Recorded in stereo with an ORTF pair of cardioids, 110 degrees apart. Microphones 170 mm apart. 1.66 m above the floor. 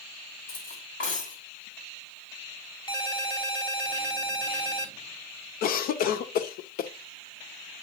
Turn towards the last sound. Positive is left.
turn(degrees=60)